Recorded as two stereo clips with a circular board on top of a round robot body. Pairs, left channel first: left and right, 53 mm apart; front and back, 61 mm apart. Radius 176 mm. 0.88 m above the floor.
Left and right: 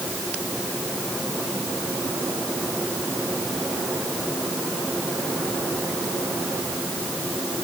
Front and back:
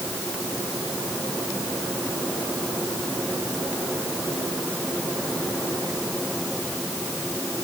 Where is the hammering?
I don't hear hammering.